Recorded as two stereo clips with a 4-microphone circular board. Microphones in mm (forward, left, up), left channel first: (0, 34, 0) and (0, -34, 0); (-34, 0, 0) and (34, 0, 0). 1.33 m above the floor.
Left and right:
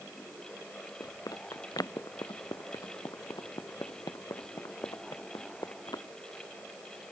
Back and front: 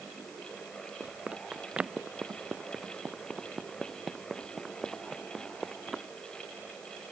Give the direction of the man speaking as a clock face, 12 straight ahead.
I don't hear a man speaking.